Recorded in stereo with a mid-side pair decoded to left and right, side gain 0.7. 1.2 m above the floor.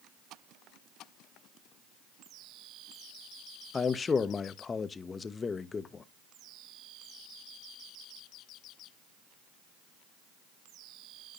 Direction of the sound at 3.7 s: 25° left.